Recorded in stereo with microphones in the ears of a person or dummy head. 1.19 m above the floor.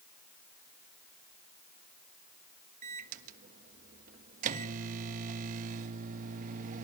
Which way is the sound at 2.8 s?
45° right (ahead or behind).